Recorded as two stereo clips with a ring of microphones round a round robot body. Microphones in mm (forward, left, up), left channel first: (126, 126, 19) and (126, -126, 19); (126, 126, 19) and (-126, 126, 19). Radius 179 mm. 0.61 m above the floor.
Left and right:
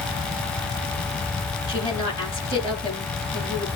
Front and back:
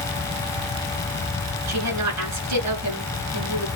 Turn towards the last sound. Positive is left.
turn(degrees=175)